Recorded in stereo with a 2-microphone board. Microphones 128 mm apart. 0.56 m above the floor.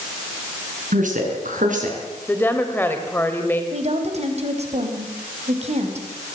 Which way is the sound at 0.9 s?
80° right.